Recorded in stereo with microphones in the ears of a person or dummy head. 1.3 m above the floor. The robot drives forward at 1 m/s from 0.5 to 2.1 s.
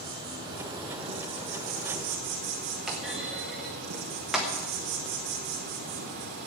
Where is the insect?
25° right (ahead or behind), 2.5 m; by 6.5 s 50° right (ahead or behind), 1.3 m.